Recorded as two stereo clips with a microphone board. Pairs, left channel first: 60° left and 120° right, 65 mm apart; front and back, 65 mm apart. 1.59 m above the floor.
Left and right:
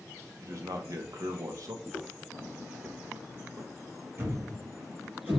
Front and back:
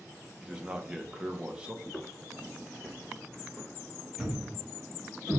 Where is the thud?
115° right, 1.2 m.